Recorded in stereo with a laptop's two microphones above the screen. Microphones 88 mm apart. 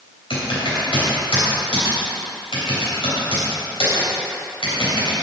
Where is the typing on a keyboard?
80° left, 3.5 m.